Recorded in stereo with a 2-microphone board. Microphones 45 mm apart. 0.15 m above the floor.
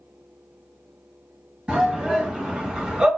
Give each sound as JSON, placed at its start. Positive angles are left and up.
{"t": 1.7, "sound": "a shout", "side_deg": -15, "distance_m": 2.5}